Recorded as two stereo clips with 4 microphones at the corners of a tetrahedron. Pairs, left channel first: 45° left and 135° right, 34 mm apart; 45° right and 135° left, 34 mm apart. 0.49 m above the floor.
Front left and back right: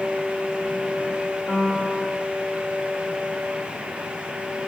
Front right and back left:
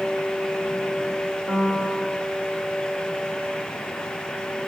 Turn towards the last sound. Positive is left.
turn(degrees=0)